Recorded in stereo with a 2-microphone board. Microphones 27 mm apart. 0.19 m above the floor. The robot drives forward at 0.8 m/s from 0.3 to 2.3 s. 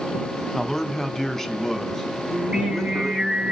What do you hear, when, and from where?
0.5 s a man speaking: 15° left (ahead or behind), 1.2 m; by 3.3 s 10° left (ahead or behind), 2 m
2.3 s singing: 40° right (ahead or behind), 5 m